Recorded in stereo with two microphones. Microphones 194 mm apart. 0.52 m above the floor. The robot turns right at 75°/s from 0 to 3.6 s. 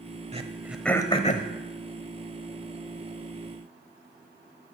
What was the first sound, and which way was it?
Throat clearing, 35° right (ahead or behind).